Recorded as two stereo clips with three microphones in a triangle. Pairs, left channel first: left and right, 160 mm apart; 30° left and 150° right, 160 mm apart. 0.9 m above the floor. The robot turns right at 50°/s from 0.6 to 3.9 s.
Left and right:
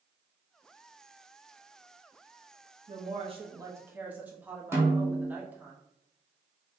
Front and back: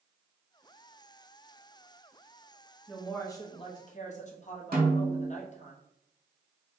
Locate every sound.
2.9 s a woman speaking: 60° right, 0.9 m; by 5.7 s 10° right, 0.9 m
4.7 s a snare drum: 165° right, 1.2 m